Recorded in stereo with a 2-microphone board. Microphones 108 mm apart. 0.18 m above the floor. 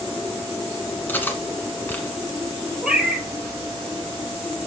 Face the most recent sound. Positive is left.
turn(degrees=-5)  # may be behind; listen again after turning